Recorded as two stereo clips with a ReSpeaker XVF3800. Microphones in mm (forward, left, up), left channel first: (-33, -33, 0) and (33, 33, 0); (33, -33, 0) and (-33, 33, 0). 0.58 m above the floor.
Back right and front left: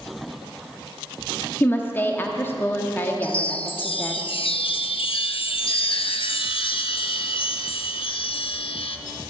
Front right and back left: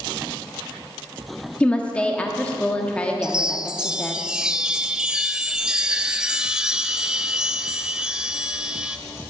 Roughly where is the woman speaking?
Right.